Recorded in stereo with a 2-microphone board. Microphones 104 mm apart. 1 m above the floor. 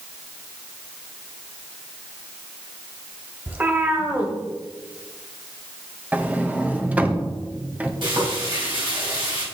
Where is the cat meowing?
20° right (ahead or behind), 1.3 m.